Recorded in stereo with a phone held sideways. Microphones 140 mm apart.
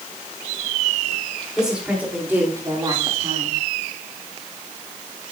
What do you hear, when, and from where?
1.6 s a woman speaking: 5° right (ahead or behind), 3.5 m; by 3.6 s 50° right (ahead or behind), 2 m